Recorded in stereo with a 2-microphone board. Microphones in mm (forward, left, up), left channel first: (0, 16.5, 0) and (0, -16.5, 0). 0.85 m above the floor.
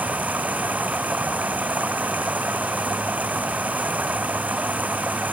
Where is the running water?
60° right (ahead or behind).